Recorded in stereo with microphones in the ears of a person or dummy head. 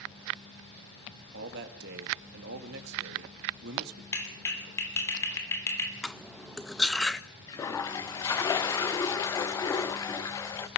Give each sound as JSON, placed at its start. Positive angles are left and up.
{"t": 1.3, "sound": "a man speaking", "side_deg": -60, "distance_m": 2.0}
{"t": 4.1, "sound": "a clap", "side_deg": 15, "distance_m": 3.0}
{"t": 6.0, "sound": "cutlery clinking", "side_deg": 5, "distance_m": 0.6}
{"t": 7.5, "sound": "a toilet flushing", "side_deg": 15, "distance_m": 0.7}